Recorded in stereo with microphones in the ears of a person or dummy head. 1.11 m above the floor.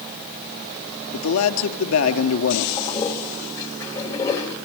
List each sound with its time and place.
1.1 s a man speaking: 80° left, 2.5 m
2.8 s a toilet flushing: 15° left (ahead or behind), 2.5 m